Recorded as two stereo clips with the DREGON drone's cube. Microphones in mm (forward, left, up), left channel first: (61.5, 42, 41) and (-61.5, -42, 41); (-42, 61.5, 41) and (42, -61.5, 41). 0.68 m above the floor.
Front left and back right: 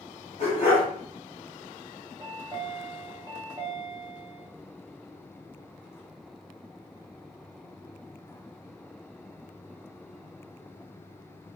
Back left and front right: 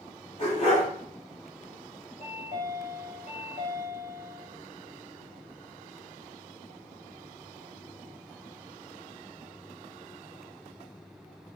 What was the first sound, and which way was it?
A dog barking, 75° left.